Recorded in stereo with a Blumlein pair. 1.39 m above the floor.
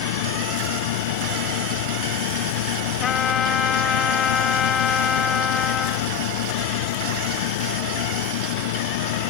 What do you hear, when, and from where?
0.0 s a fan: 50° left
3.0 s a trumpet: 25° left